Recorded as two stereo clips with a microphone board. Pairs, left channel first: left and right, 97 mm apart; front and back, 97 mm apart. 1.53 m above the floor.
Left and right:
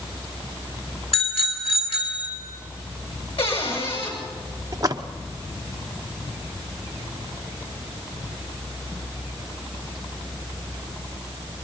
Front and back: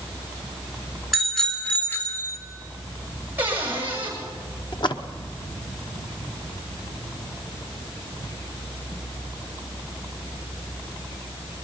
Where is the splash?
35° right, 1.0 m.